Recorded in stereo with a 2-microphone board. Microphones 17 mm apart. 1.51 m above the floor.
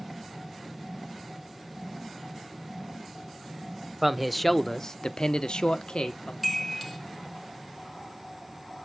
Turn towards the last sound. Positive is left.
turn(degrees=0)  # may be behind; listen again after turning